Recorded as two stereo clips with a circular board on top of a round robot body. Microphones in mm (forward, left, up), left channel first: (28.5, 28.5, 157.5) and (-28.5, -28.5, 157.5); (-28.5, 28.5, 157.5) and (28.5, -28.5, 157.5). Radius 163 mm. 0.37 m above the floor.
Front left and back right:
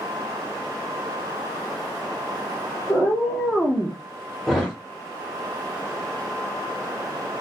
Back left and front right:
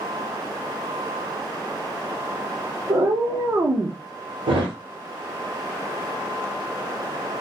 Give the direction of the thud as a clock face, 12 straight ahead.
1 o'clock.